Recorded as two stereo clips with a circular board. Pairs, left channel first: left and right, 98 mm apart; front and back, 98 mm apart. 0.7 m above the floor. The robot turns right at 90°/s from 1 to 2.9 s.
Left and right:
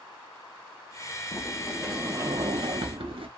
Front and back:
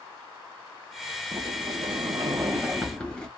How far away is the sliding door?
About 0.8 m.